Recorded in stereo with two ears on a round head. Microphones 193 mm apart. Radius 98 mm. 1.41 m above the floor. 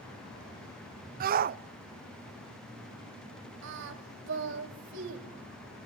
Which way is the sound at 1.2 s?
45° right (ahead or behind).